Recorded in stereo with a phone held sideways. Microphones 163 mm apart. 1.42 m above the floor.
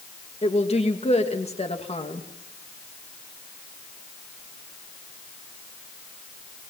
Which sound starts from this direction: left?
A woman speaking, at 0.4 s.